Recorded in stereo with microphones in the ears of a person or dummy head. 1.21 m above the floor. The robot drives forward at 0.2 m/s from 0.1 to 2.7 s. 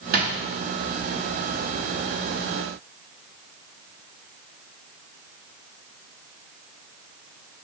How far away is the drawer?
About 0.9 m.